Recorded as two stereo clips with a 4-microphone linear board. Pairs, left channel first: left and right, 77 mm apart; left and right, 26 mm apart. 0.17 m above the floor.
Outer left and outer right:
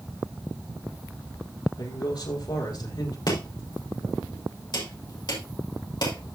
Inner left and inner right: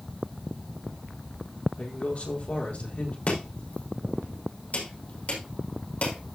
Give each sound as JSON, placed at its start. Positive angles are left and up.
{"t": 1.8, "sound": "a man speaking", "side_deg": 65, "distance_m": 4.5}
{"t": 3.3, "sound": "chopping", "side_deg": 60, "distance_m": 5.5}